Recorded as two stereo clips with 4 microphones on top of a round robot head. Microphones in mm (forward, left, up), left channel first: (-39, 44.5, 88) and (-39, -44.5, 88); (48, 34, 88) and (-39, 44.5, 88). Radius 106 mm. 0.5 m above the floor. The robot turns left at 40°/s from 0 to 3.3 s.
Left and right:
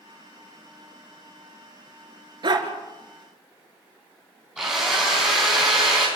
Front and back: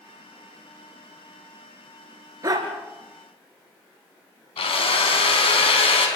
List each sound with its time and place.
2.4 s a dog barking: 130° right, 2.5 m; by 2.7 s 140° right, 2.5 m
4.6 s a drill: 5° right, 5 m